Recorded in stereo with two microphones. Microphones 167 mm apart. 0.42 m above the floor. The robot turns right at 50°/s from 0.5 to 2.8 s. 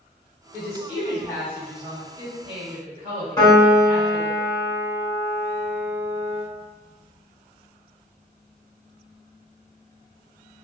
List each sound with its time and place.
0.5 s a woman speaking: 45° left (ahead or behind), 1.9 m; by 4.4 s 45° right (ahead or behind), 1.9 m
3.4 s a piano: 20° left (ahead or behind), 2.0 m